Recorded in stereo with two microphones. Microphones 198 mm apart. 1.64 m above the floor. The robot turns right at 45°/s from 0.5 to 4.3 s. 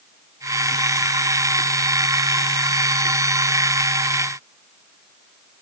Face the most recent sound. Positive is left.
No sound to turn to.